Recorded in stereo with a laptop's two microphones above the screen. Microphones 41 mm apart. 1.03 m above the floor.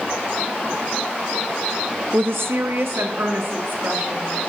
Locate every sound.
2.1 s a woman speaking: 70° right (ahead or behind), 0.7 m